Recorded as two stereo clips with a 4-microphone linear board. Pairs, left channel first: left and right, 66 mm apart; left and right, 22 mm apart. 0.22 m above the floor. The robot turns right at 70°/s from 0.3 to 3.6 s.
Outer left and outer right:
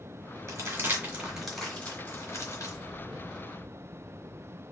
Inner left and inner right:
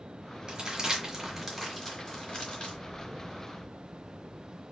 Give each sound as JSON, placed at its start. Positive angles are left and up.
{"t": 0.5, "sound": "crumpling", "side_deg": -50, "distance_m": 2.0}